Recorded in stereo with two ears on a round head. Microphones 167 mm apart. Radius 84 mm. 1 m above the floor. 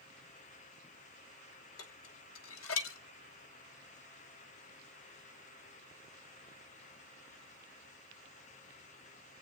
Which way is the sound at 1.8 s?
80° left.